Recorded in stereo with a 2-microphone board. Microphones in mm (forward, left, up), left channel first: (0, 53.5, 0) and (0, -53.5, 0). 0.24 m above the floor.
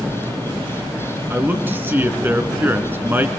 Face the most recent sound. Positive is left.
turn(degrees=-20)  # may be behind; listen again after turning